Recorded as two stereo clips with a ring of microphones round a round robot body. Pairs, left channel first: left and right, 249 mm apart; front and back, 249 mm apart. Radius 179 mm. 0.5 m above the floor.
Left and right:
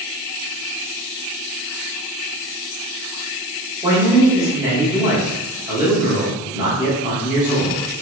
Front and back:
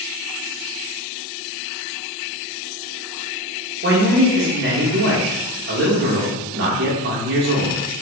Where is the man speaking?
160° right, 0.9 m.